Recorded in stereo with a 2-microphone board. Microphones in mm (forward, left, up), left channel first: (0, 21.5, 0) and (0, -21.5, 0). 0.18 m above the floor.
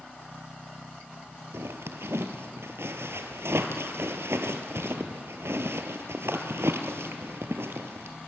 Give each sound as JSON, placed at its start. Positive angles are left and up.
{"t": 1.5, "sound": "a zipper", "side_deg": -75, "distance_m": 1.4}